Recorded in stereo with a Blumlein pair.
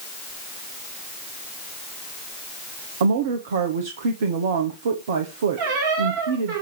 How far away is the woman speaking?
About 1.1 m.